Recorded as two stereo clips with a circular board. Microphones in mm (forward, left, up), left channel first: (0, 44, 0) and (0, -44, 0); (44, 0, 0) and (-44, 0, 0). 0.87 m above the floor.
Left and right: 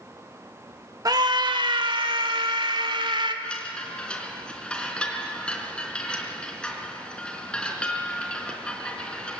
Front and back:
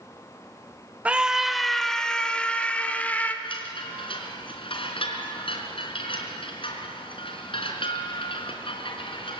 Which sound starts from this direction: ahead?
A chime, at 3.4 s.